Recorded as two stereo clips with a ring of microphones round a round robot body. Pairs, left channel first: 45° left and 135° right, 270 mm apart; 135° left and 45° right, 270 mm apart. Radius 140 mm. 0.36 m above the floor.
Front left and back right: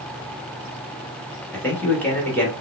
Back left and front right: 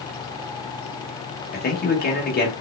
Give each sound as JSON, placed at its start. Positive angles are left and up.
{"t": 1.5, "sound": "a man speaking", "azimuth_deg": 125, "distance_m": 1.0}